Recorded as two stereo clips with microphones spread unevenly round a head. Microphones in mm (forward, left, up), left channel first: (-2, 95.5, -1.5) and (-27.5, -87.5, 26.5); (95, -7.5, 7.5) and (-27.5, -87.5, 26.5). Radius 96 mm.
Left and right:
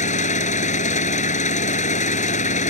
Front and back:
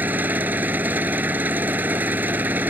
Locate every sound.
0.0 s an engine running: 135° left